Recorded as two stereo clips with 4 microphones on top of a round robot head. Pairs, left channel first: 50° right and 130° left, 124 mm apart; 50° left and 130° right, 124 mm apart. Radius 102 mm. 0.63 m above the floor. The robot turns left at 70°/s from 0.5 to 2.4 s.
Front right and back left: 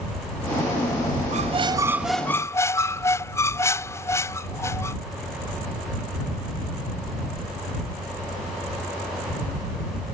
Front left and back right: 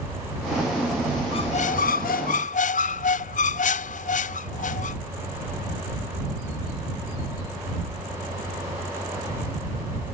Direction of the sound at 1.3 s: 100° left.